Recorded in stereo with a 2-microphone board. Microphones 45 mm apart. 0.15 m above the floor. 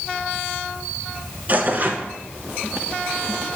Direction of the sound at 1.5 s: 40° right (ahead or behind).